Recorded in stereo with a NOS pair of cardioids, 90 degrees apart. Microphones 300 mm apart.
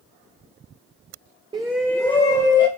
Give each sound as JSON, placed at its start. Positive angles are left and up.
{"t": 1.5, "sound": "a shout", "azimuth_deg": -15, "distance_m": 0.6}